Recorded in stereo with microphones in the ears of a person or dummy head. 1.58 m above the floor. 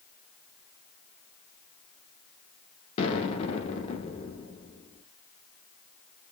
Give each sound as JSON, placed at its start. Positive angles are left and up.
{"t": 3.0, "sound": "an explosion", "side_deg": 30, "distance_m": 0.7}